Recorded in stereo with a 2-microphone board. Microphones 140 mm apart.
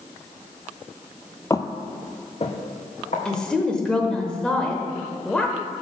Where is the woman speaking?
5° left (ahead or behind), 0.8 m.